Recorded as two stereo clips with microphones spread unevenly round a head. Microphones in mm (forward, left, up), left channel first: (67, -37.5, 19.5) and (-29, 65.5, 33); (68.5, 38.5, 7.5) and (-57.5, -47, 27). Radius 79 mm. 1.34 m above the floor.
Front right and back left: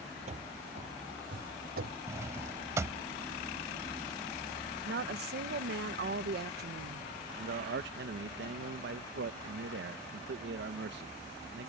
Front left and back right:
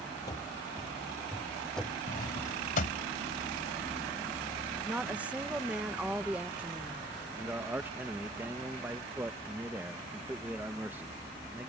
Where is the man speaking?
135° left.